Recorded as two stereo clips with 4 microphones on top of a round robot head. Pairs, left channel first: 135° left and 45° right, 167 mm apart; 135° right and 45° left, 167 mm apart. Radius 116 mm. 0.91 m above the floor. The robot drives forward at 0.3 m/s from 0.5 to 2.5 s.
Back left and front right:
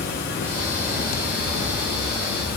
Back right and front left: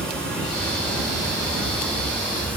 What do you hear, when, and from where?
0.0 s running water: 140° left, 7.5 m; by 2.6 s 145° left, 7.5 m